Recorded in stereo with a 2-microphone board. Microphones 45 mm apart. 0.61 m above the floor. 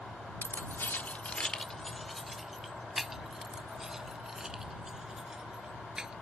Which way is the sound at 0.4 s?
60° left (ahead or behind).